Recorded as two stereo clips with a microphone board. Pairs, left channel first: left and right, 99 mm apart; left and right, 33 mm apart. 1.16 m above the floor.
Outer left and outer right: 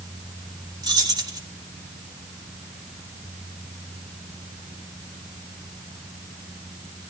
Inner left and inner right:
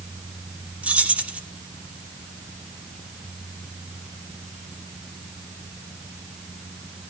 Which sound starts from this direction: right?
Keys jangling, at 0.8 s.